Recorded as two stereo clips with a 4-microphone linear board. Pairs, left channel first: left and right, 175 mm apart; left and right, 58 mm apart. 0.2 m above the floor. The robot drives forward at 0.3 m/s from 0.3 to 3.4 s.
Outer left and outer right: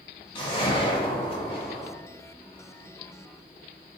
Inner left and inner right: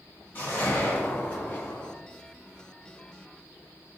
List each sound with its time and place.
0.3 s a whoosh: 30° left (ahead or behind), 1.2 m; by 1.9 s 35° left (ahead or behind), 1.0 m